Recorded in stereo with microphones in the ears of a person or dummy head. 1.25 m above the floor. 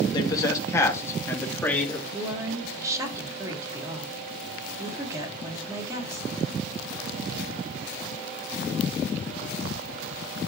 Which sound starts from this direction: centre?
A woman speaking, at 2.1 s.